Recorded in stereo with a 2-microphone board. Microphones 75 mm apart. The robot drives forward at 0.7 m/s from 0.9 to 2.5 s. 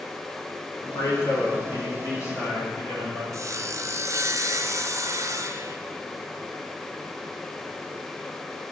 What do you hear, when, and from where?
0.8 s a man speaking: 60° left (ahead or behind), 2.5 m; by 3.2 s 45° left (ahead or behind), 3 m
3.3 s sawing: 45° right (ahead or behind), 0.5 m